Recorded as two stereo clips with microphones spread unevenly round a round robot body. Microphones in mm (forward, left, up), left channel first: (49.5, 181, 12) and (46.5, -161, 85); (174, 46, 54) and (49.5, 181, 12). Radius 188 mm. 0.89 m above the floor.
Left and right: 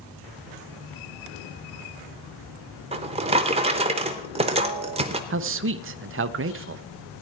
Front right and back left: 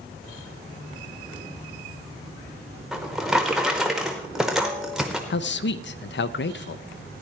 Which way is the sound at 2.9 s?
120° right.